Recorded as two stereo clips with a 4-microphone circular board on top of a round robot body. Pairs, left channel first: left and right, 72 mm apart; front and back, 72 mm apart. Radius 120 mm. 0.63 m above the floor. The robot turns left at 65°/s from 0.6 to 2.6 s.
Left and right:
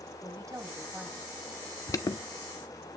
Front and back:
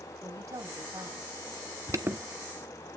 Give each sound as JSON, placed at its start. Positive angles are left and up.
{"t": 0.2, "sound": "a woman speaking", "azimuth_deg": -135, "distance_m": 3.5}
{"t": 1.9, "sound": "an alarm", "azimuth_deg": 135, "distance_m": 1.5}